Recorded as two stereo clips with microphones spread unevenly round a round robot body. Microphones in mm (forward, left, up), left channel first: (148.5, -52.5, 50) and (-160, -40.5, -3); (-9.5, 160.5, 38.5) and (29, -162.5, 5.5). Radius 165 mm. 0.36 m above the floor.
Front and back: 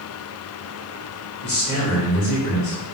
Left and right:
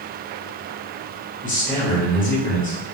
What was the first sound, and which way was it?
A man speaking, 35° left.